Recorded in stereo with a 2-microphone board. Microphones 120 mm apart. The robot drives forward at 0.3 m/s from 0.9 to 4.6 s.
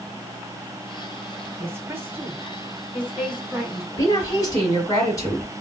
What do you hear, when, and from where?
1.6 s a woman speaking: 20° right (ahead or behind), 1.1 m; by 3.9 s 15° right (ahead or behind), 1.6 m
4.0 s a woman speaking: 25° left (ahead or behind), 2.0 m